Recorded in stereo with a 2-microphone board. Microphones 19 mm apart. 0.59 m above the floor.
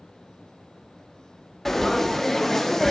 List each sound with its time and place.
1.6 s frying: 25° left (ahead or behind), 0.5 m